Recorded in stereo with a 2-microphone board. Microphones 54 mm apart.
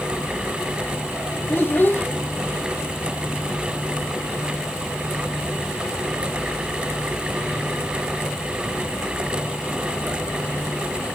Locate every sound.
1.5 s a child speaking: 40° left (ahead or behind), 1.8 m